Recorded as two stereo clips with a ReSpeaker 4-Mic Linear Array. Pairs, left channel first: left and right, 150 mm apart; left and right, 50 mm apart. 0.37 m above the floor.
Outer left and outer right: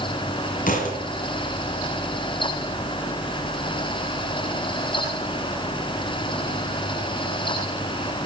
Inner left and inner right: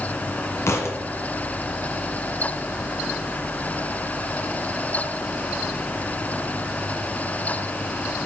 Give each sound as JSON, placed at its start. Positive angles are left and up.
{"t": 0.7, "sound": "a thud", "side_deg": 65, "distance_m": 2.0}